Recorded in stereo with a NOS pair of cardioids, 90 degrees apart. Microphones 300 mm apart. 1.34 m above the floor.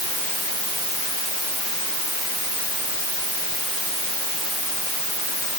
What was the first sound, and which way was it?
Only background noise.